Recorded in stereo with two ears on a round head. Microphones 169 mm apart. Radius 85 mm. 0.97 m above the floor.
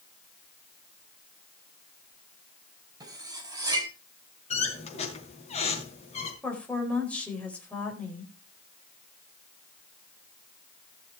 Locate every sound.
3.0 s cutlery clinking: 20° right (ahead or behind), 4 m
4.5 s a squeak: 35° left (ahead or behind), 4 m
6.4 s a woman speaking: 5° left (ahead or behind), 4 m